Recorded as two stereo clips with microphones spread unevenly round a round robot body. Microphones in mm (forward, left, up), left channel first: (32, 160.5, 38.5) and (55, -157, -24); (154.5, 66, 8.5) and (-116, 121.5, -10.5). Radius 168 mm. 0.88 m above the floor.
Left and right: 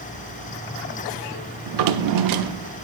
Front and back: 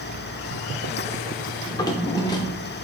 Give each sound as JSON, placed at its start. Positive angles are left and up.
{"t": 1.7, "sound": "a drawer", "azimuth_deg": -80, "distance_m": 0.6}